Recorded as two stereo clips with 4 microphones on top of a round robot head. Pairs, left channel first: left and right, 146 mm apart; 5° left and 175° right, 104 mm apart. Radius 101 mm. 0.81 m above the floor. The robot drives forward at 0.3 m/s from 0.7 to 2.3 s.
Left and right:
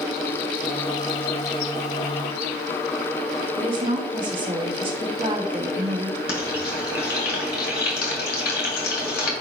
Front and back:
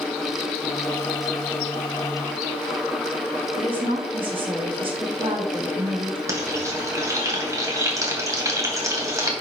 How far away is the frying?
About 2 m.